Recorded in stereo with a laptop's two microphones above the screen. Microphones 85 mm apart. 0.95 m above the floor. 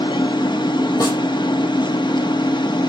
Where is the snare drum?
45° left (ahead or behind), 7.5 m.